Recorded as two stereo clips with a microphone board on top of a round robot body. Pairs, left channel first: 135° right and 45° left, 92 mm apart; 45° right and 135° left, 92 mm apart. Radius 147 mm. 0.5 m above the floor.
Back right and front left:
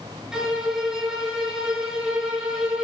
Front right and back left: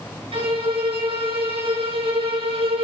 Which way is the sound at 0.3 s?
130° left.